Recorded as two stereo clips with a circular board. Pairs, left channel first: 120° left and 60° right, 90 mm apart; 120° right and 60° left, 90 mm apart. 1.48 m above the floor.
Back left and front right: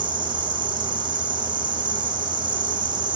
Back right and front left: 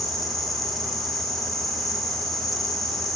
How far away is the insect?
About 7.5 m.